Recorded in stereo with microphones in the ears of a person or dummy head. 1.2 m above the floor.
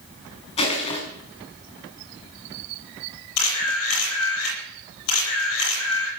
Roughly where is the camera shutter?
Left.